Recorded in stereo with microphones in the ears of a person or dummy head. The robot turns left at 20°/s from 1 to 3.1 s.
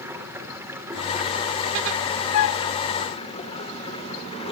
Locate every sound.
0.0 s running water: 165° right, 3.5 m; by 4.5 s 155° left, 3.5 m
2.3 s a flute: 75° left (ahead or behind), 0.5 m; by 2.7 s 80° left, 0.5 m